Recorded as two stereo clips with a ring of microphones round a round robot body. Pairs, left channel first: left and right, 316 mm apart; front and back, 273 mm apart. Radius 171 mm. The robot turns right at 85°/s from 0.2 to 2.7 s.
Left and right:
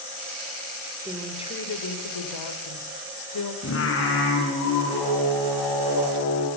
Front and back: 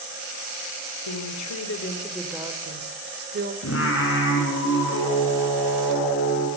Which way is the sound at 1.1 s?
15° right.